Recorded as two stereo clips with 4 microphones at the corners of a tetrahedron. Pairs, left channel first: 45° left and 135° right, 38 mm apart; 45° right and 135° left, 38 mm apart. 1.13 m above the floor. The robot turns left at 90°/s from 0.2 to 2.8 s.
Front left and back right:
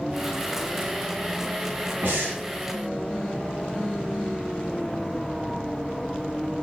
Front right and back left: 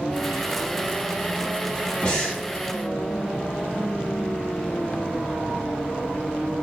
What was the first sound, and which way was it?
Breathing, 105° right.